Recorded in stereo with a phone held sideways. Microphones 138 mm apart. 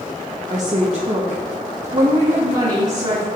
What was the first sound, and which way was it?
A woman speaking, 55° right (ahead or behind).